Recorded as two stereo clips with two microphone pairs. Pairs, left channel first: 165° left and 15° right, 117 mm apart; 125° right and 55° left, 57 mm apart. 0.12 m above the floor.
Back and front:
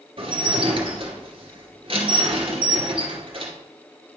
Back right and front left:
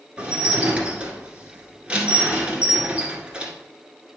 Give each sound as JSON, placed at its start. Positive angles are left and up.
{"t": 0.2, "sound": "dishes clattering", "azimuth_deg": -10, "distance_m": 1.5}